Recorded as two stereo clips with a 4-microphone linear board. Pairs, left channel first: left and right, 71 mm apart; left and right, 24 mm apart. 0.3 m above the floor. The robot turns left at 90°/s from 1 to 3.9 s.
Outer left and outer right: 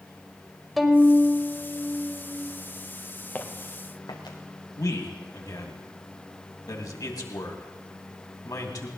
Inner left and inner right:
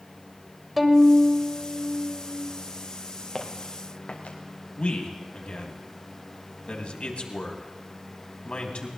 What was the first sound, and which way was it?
A violin, centre (ahead or behind).